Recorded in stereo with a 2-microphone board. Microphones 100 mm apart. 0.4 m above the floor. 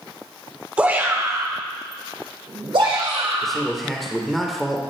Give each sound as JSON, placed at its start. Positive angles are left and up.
{"t": 0.8, "sound": "a shout", "side_deg": -15, "distance_m": 0.9}
{"t": 3.4, "sound": "a man speaking", "side_deg": 0, "distance_m": 0.9}